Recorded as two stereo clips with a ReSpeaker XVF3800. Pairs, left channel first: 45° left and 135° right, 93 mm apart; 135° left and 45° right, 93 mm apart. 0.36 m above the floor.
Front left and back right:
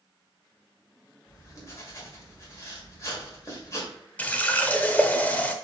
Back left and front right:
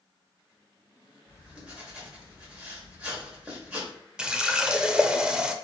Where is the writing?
25° left, 1.6 m.